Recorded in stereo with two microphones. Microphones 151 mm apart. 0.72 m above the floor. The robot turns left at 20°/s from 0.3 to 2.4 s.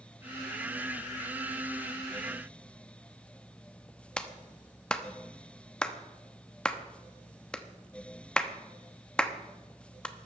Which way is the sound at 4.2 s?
5° left (ahead or behind).